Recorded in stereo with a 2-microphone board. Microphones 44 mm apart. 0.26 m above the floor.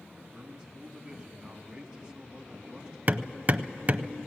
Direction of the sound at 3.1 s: 35° right (ahead or behind).